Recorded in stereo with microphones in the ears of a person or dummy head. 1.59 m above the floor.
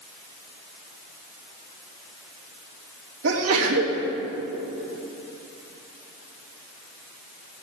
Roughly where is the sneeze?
Right.